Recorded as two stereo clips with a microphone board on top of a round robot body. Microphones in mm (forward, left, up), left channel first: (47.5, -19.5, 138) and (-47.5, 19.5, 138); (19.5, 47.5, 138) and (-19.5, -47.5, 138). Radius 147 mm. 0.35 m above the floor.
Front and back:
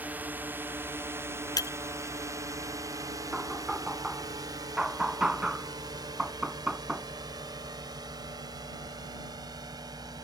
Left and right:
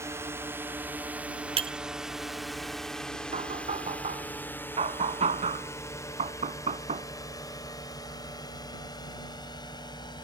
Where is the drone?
145° right; by 10.3 s 110° left.